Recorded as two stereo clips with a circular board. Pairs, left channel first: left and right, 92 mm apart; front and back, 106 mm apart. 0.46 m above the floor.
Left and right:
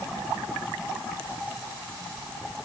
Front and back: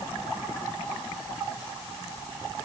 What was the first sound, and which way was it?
Only background noise.